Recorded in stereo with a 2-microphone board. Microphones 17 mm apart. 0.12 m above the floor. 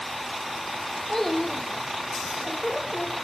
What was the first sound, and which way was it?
A child speaking, 20° left (ahead or behind).